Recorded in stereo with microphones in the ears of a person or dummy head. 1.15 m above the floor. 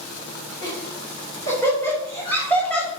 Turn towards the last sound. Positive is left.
turn(degrees=10)  # may be behind; listen again after turning